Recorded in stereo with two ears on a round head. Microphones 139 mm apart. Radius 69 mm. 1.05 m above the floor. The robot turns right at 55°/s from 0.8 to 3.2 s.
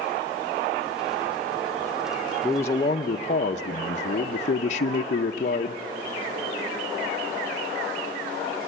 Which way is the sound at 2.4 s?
5° left.